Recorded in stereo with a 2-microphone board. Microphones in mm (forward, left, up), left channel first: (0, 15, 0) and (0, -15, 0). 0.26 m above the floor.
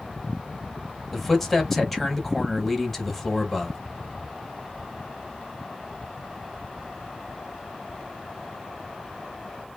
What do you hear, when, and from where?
1.1 s a man speaking: centre (ahead or behind), 1.1 m